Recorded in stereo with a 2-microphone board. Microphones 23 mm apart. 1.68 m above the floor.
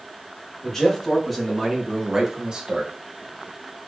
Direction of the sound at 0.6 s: 15° left (ahead or behind).